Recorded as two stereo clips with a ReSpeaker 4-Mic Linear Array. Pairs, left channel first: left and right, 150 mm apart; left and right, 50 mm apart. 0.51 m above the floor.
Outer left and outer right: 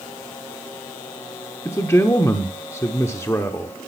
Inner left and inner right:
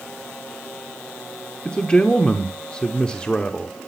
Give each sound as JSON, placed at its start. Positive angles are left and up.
{"t": 1.6, "sound": "a man speaking", "side_deg": 20, "distance_m": 0.9}